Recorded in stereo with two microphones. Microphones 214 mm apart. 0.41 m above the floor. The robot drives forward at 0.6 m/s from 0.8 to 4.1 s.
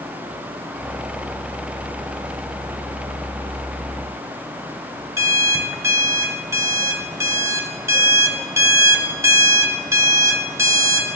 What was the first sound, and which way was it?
An alarm clock, 15° right (ahead or behind).